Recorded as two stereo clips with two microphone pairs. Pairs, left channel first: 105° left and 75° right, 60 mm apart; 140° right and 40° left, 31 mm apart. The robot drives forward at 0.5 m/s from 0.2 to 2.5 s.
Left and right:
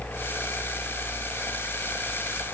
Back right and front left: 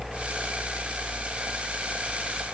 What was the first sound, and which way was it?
Only background noise.